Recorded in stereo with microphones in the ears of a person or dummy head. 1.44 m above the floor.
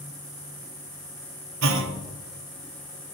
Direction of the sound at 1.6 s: 75° right (ahead or behind).